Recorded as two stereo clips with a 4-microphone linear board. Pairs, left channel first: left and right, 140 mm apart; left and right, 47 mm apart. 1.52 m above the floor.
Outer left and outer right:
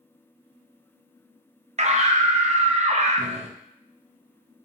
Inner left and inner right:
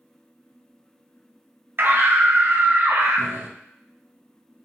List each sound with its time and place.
1.8 s a scream: 50° right (ahead or behind), 0.5 m